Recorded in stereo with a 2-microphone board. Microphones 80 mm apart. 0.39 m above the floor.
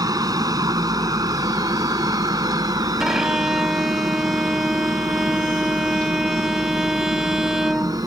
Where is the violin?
5° right (ahead or behind).